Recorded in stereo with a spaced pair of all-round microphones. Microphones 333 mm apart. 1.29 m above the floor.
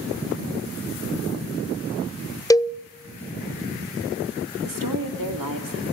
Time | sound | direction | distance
2.5 | a cowbell | 10° left (ahead or behind) | 0.6 m
4.6 | a woman speaking | 80° right | 3 m